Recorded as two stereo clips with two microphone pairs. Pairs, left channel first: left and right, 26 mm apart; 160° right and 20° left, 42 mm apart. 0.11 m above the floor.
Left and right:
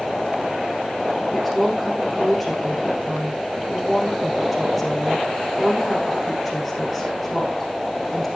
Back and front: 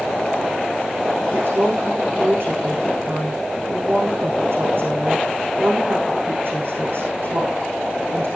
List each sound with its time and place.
1.3 s a woman speaking: 5° right, 6 m